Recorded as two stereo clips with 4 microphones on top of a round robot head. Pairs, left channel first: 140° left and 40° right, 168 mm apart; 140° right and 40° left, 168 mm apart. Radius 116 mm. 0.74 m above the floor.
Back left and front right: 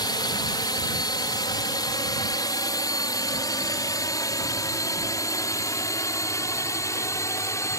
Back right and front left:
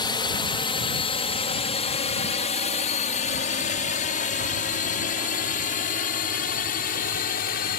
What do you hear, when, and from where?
0.0 s a drone: 175° right; by 7.8 s 150° right